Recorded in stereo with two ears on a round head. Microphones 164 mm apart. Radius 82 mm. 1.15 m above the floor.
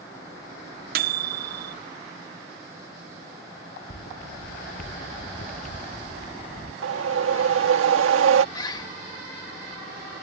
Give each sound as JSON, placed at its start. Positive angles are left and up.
{"t": 0.9, "sound": "a microwave", "side_deg": -55}
{"t": 3.9, "sound": "footsteps", "side_deg": 55}
{"t": 6.8, "sound": "a whoosh", "side_deg": -85}
{"t": 8.6, "sound": "a bird", "side_deg": 25}